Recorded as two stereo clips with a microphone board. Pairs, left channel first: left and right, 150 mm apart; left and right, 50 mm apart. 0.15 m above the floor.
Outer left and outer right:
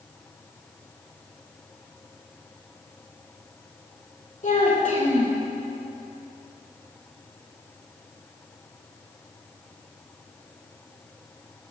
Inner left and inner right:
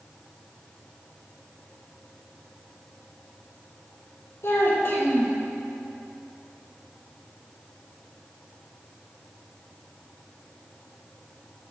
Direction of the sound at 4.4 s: 55° left (ahead or behind).